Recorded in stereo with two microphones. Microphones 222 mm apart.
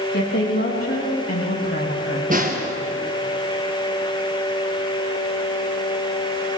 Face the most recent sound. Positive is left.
turn(degrees=-35)  # may be behind; listen again after turning